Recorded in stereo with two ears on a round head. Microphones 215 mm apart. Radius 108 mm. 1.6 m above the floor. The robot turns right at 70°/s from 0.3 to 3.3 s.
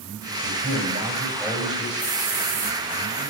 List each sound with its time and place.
0.4 s a man speaking: 65° right, 7.5 m; by 1.9 s 35° left, 7.5 m
2.0 s a hiss: 170° left, 5 m; by 2.8 s 130° right, 5 m